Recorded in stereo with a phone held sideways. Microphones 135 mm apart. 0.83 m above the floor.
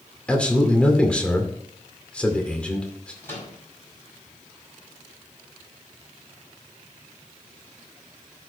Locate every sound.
0.3 s a man speaking: 10° left (ahead or behind), 2 m
3.2 s a microwave: 20° left (ahead or behind), 5 m